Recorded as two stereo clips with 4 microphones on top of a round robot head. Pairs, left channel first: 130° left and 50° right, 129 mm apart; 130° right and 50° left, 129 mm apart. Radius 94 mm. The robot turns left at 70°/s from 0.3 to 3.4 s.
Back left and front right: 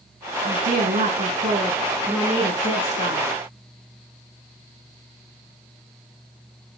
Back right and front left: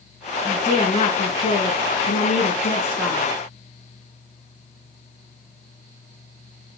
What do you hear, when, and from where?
0.4 s a woman speaking: 25° right, 7 m; by 3.3 s 135° left, 7 m